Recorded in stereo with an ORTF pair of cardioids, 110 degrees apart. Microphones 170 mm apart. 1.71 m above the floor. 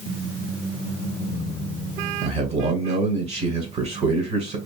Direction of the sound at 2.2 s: 40° right.